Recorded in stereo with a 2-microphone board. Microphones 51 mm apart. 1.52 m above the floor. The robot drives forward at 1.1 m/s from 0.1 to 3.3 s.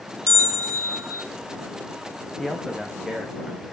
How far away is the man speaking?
About 1.2 m.